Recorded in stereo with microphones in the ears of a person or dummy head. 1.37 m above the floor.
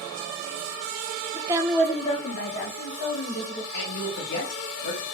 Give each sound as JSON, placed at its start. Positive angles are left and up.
{"t": 1.3, "sound": "a woman speaking", "side_deg": -30, "distance_m": 0.6}
{"t": 3.7, "sound": "a man speaking", "side_deg": 60, "distance_m": 1.9}